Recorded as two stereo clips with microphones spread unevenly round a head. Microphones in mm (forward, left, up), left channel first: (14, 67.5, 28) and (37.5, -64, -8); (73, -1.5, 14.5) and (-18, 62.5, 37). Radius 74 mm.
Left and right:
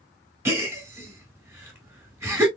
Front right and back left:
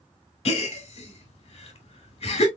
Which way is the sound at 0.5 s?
Straight ahead.